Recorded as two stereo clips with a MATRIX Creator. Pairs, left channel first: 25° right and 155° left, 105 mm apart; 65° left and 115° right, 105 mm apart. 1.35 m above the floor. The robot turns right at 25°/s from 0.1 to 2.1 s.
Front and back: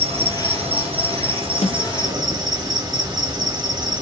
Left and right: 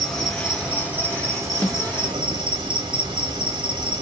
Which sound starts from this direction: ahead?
A snare drum, at 1.6 s.